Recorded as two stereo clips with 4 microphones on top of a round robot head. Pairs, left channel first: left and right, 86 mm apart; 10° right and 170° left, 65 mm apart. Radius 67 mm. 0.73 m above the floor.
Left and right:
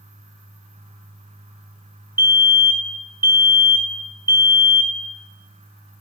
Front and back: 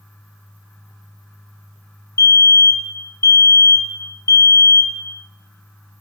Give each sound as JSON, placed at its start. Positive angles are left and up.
{"t": 2.2, "sound": "a fire alarm", "azimuth_deg": -30, "distance_m": 2.5}